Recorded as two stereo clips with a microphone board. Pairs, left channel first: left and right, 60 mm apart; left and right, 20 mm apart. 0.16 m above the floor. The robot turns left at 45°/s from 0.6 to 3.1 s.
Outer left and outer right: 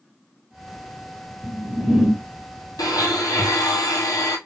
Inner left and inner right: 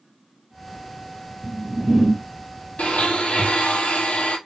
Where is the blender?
80° left, 1.2 m; by 4.4 s 75° left (ahead or behind), 1.2 m.